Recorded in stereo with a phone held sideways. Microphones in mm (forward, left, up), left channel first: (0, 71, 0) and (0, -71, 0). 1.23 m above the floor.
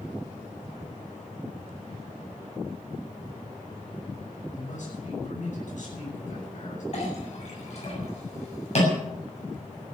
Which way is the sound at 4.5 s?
60° left (ahead or behind).